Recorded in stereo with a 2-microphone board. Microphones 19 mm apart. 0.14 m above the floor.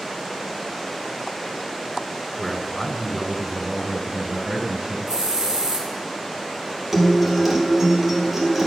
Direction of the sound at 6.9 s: 10° right (ahead or behind).